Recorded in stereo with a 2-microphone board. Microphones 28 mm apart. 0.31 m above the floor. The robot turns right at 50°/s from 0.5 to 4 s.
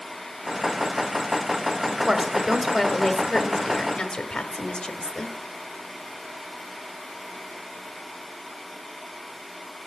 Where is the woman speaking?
45° right, 1.1 m; by 5.3 s 60° left, 1.1 m.